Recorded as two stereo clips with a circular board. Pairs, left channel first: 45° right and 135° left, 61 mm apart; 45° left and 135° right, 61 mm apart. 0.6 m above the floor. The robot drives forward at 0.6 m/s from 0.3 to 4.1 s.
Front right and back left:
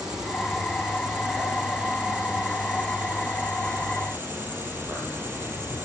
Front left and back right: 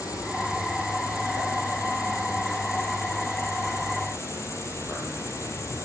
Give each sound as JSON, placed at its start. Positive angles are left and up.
{"t": 0.0, "sound": "an insect", "azimuth_deg": 60, "distance_m": 7.0}